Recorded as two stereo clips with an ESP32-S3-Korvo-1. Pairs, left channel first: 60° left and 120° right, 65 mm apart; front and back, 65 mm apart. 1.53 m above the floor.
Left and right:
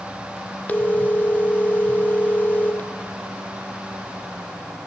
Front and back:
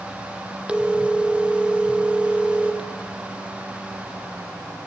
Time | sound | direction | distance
0.7 | a phone ringing | 110° left | 1.4 m